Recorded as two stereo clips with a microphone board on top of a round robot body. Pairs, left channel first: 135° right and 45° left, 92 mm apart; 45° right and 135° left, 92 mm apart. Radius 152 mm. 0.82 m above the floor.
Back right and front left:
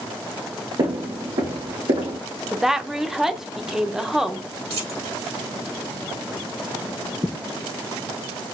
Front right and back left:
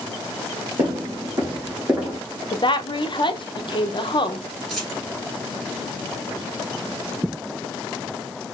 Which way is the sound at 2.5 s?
40° right.